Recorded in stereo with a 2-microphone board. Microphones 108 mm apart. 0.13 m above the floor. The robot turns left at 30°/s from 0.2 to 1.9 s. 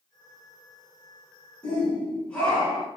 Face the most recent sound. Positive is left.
turn(degrees=10)  # may be behind; listen again after turning